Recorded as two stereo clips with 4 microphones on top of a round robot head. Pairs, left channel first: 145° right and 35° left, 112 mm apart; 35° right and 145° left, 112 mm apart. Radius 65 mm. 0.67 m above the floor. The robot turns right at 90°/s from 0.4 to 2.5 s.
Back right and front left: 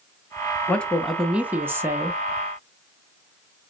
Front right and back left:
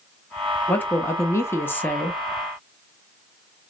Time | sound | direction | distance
0.7 | a woman speaking | 90° right | 0.6 m